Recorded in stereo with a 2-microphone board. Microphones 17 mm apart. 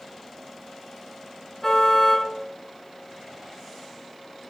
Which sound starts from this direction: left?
A car horn, at 1.6 s.